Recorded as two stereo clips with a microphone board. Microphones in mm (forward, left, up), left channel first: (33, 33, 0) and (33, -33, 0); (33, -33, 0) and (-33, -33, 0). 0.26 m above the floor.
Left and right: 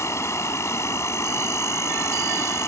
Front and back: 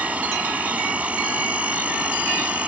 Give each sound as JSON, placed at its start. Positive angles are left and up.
{"t": 0.0, "sound": "an insect", "azimuth_deg": 115}